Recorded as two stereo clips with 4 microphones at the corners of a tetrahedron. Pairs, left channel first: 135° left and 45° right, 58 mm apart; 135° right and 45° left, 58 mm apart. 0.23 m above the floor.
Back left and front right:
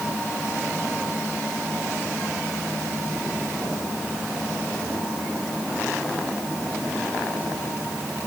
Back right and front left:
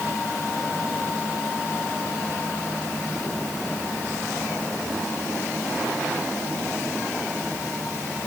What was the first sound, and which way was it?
Only background noise.